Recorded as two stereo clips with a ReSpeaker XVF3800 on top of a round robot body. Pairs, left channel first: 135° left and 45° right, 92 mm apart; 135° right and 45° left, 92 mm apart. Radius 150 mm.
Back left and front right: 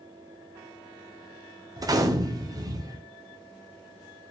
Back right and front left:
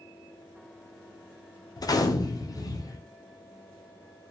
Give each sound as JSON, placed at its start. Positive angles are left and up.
{"t": 1.8, "sound": "a gunshot", "azimuth_deg": -90, "distance_m": 0.7}